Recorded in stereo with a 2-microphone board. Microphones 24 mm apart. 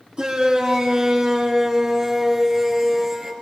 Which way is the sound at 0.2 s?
40° right (ahead or behind).